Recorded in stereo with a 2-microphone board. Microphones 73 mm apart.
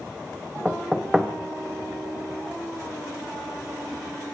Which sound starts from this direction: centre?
Knocking, at 0.7 s.